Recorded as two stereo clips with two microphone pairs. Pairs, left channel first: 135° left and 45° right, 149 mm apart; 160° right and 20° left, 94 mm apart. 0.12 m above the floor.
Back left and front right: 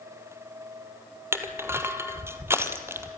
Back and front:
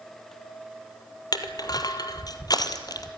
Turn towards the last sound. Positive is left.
turn(degrees=-120)